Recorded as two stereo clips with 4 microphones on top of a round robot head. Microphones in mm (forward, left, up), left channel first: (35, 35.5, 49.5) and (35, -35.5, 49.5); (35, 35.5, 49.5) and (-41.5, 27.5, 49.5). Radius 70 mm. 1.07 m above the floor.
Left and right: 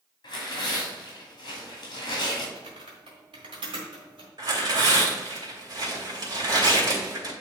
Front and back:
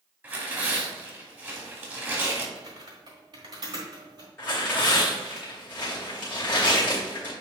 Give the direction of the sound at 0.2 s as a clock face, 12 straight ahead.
8 o'clock.